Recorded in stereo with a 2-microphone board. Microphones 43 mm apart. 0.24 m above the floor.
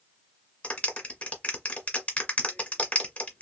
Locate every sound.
0.6 s a clap: 35° left (ahead or behind), 1.6 m